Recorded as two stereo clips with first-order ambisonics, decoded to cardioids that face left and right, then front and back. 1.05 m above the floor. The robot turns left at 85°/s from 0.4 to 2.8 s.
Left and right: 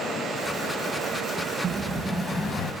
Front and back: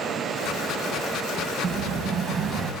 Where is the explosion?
160° right, 1.0 m; by 2.7 s 110° left, 1.0 m.